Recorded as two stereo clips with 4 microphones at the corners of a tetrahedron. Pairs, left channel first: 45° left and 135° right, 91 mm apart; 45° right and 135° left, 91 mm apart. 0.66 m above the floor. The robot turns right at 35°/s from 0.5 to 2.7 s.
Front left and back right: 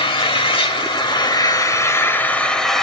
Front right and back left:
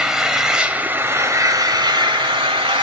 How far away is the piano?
No piano in this recording.